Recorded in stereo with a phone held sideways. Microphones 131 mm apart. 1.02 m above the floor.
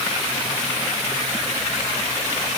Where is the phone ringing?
No phone ringing in this recording.